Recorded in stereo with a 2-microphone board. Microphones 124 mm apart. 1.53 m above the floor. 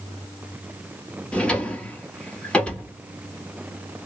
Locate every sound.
1.3 s a drawer: 10° left (ahead or behind), 1.1 m